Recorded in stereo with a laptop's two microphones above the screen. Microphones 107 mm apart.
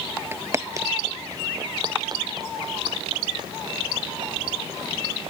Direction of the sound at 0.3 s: 20° right (ahead or behind).